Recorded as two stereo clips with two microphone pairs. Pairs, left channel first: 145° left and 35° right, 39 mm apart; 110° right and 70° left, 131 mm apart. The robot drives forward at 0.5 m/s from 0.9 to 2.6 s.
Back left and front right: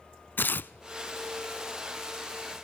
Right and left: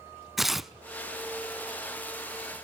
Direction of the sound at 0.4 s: 155° left.